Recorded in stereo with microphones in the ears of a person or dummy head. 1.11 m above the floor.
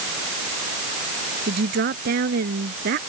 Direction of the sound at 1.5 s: 60° right (ahead or behind).